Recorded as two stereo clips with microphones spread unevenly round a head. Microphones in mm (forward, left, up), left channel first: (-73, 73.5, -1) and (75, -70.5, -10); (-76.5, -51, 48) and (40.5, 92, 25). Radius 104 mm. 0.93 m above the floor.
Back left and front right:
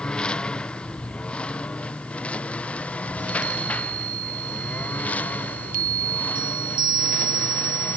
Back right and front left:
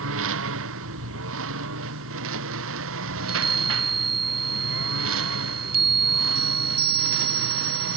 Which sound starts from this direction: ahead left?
A lawn mower, at 0.0 s.